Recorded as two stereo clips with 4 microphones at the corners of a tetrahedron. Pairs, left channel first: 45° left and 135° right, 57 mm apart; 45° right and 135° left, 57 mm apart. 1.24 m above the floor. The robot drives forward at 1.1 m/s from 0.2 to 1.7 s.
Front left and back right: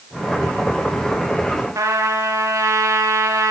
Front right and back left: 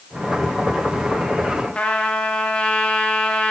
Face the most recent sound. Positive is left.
turn(degrees=-115)